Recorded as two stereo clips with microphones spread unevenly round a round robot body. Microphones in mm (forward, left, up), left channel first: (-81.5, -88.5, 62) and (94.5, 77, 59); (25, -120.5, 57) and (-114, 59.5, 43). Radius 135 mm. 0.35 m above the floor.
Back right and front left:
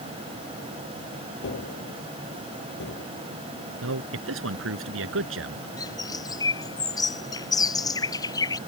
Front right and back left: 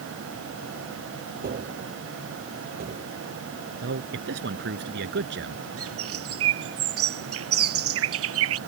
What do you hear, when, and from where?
1.4 s tapping: 175° left
3.8 s a man speaking: 80° left
5.8 s a bird: 145° left